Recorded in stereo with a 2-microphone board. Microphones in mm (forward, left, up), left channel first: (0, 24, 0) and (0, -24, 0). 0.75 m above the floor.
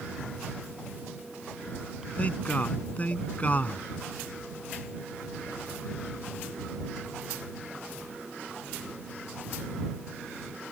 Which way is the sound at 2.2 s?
30° left (ahead or behind).